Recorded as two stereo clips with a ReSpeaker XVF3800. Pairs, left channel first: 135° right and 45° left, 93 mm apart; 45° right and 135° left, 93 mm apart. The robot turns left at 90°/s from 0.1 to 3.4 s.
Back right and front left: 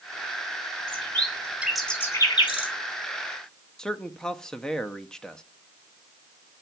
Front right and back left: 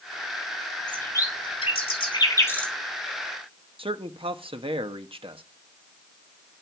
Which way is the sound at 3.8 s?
140° left.